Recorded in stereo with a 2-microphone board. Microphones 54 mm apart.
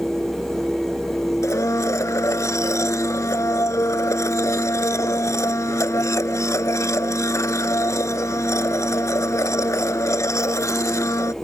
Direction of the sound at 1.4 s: 80° left.